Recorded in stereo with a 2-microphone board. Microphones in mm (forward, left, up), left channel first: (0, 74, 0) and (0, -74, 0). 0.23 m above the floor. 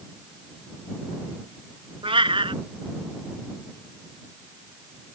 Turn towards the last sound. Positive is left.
turn(degrees=-35)  # may be behind; listen again after turning